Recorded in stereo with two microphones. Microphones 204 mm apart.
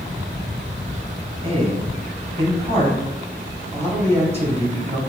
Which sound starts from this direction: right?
A man speaking, at 1.4 s.